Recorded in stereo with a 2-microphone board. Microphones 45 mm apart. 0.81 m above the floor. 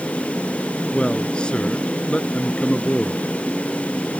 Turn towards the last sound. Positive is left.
turn(degrees=25)  # may be behind; listen again after turning